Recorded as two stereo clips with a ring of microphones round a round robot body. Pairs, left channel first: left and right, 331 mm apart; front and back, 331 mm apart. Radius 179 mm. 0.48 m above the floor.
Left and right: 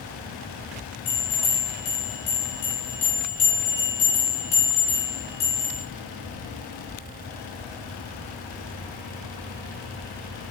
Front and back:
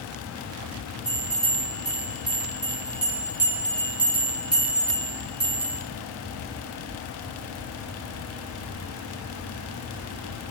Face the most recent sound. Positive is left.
turn(degrees=95)